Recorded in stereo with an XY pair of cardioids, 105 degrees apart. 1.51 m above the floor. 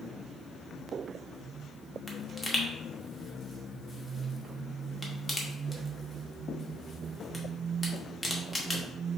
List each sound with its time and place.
2.1 s a pop: 15° left, 0.9 m